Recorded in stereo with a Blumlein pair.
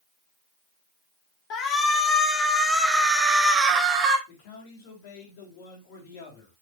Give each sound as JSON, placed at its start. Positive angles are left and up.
{"t": 1.5, "sound": "a shout", "azimuth_deg": 30, "distance_m": 2.5}
{"t": 4.3, "sound": "a man speaking", "azimuth_deg": 50, "distance_m": 3.5}